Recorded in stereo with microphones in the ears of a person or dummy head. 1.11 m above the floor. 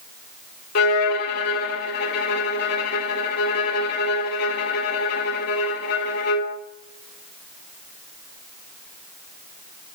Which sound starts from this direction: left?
A violin, at 0.8 s.